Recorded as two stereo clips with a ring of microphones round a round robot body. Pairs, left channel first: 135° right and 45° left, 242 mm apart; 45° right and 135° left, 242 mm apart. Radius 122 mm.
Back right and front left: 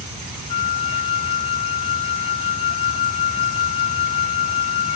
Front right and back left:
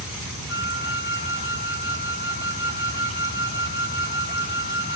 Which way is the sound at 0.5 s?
Straight ahead.